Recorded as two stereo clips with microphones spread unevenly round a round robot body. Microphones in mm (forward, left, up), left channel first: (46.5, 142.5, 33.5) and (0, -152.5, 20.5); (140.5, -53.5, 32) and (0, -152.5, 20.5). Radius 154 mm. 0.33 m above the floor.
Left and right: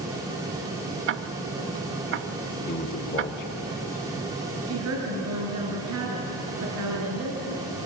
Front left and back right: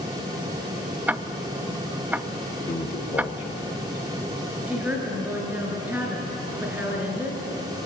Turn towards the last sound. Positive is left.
turn(degrees=-65)